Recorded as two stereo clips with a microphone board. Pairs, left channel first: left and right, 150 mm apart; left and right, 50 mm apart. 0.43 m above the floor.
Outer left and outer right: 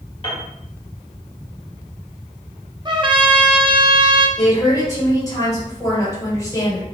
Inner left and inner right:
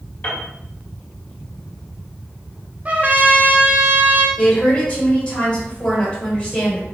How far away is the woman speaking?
About 2.0 m.